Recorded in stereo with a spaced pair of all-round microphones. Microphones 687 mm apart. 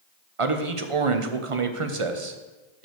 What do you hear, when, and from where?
0.4 s a man speaking: 50° right (ahead or behind), 1.0 m